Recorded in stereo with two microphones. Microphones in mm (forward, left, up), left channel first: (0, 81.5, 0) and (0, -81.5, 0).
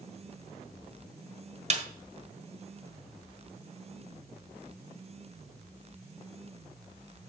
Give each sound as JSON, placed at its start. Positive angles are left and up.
{"t": 1.7, "sound": "a snare drum", "side_deg": -45, "distance_m": 1.4}